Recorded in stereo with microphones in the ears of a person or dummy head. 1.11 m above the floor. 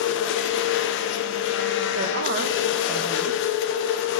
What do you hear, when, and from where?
0.0 s a machine running: 60° left (ahead or behind), 0.8 m
1.9 s a woman speaking: 45° right (ahead or behind), 0.6 m